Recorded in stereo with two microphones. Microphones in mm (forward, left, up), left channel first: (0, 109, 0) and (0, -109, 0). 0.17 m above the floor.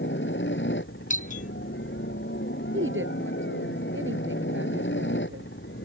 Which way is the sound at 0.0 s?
60° left (ahead or behind).